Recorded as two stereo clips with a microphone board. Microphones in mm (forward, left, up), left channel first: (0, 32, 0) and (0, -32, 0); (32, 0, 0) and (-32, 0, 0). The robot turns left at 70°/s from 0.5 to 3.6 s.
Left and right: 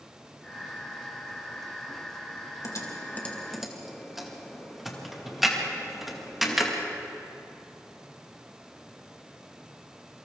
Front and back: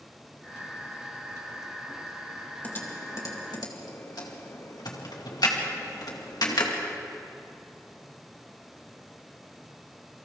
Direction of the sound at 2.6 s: 65° left.